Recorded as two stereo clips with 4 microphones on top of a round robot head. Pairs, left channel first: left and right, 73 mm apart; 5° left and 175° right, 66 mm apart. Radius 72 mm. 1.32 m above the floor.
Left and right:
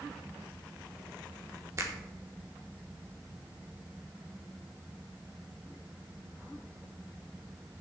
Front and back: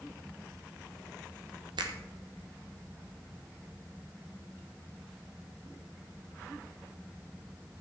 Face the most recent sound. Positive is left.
turn(degrees=-150)